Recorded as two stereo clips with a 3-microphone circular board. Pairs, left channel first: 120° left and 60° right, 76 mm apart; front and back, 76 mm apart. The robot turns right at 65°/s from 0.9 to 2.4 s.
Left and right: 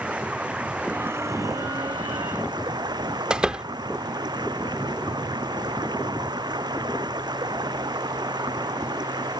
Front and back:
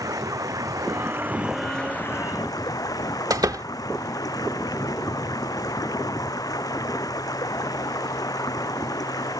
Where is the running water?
135° right; by 9.4 s 35° right.